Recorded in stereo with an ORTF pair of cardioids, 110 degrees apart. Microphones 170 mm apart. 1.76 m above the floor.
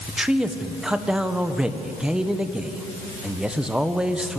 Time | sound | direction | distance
0.1 | a man speaking | 5° right | 1.4 m